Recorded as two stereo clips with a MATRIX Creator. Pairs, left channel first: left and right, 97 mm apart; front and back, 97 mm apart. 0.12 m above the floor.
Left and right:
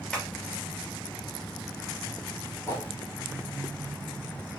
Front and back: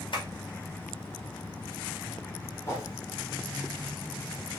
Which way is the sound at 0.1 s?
10° left.